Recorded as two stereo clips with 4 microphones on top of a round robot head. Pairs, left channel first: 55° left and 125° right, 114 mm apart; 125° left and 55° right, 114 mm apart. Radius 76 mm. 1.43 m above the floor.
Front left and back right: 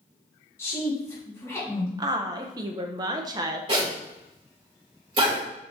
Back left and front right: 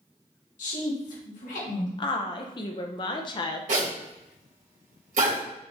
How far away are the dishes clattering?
No dishes clattering in this recording.